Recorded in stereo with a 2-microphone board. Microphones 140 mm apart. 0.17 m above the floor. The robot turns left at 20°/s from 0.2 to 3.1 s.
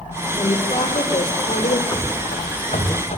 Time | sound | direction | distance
0.3 | a woman speaking | 25° left (ahead or behind) | 6.5 m
1.9 | running footsteps | 25° left (ahead or behind) | 5 m